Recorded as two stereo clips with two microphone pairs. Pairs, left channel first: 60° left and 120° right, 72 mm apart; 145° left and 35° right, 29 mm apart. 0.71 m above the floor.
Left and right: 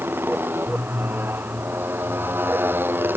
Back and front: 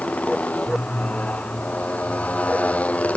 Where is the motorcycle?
175° left.